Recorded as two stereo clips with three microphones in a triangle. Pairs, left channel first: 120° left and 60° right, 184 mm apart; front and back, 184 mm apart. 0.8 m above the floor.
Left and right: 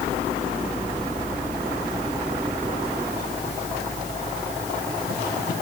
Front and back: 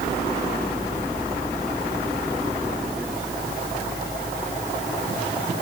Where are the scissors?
No scissors in this recording.